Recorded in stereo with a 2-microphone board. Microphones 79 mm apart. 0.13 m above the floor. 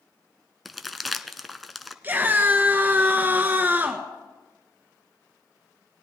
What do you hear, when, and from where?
0.7 s crumpling: centre (ahead or behind), 0.6 m
2.0 s a scream: 25° right (ahead or behind), 1.5 m